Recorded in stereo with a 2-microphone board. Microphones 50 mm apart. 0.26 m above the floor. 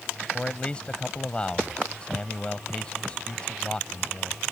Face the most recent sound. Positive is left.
turn(degrees=25)  # may be behind; listen again after turning